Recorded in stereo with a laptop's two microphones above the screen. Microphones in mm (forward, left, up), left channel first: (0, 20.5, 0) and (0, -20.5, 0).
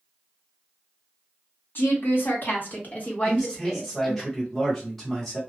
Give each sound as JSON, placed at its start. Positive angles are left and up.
{"t": 1.8, "sound": "a woman speaking", "side_deg": 65, "distance_m": 1.5}
{"t": 3.2, "sound": "a man speaking", "side_deg": 0, "distance_m": 1.4}